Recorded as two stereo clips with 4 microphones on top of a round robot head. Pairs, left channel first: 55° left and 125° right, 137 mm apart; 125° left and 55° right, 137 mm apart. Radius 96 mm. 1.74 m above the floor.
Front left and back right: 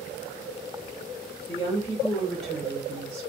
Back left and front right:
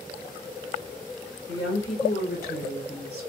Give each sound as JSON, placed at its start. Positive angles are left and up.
{"t": 1.5, "sound": "a woman speaking", "azimuth_deg": 110, "distance_m": 1.2}